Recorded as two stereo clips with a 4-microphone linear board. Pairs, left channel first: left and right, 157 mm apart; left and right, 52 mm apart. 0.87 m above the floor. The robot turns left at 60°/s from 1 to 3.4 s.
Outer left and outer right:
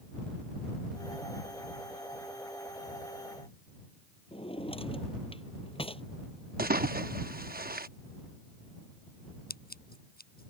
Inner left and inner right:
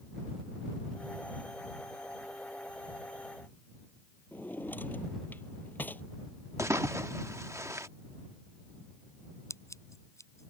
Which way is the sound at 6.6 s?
75° right (ahead or behind).